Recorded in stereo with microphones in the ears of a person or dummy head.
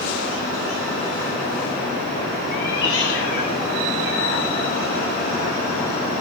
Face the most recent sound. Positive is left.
turn(degrees=20)  # may be behind; listen again after turning